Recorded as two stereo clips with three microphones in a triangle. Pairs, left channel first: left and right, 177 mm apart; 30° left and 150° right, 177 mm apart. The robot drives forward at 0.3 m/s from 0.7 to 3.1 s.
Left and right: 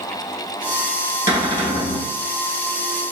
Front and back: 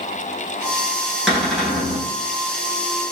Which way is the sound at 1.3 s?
120° left.